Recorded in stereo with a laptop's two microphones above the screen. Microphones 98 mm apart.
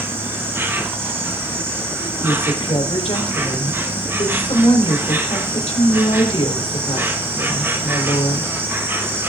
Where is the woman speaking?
80° left, 3 m.